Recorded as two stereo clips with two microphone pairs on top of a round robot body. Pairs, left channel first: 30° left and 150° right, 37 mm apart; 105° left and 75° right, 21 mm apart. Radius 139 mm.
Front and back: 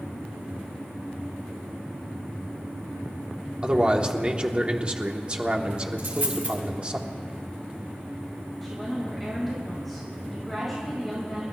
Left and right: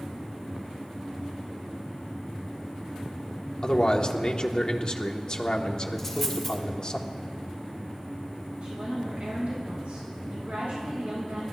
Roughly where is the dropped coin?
Behind.